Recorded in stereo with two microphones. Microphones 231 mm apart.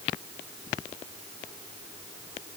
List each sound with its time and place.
Only background noise.